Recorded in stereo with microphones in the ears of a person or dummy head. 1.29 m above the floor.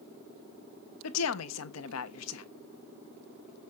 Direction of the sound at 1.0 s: 85° left.